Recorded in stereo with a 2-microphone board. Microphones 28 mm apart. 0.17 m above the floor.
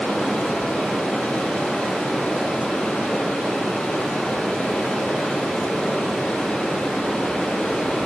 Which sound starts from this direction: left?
Running water, at 0.0 s.